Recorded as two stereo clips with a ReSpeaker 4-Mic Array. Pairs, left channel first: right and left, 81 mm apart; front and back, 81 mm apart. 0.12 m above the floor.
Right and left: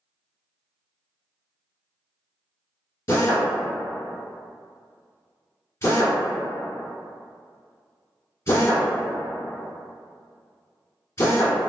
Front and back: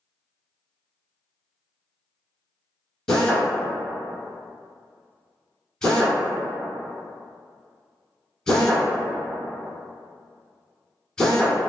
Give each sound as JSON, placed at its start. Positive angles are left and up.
{"t": 3.1, "sound": "a drill", "azimuth_deg": -75, "distance_m": 1.1}